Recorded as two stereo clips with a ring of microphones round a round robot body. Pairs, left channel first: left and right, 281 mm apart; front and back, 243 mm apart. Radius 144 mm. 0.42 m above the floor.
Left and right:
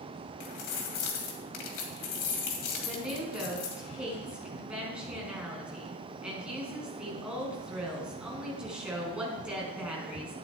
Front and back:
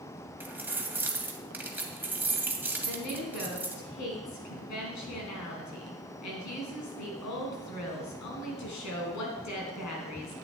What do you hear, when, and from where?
0.4 s keys jangling: 100° left, 2 m
2.8 s a woman speaking: 5° right, 4 m